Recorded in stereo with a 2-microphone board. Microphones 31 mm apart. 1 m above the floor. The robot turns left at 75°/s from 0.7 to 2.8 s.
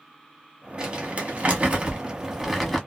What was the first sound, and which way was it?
Crumpling, 25° right (ahead or behind).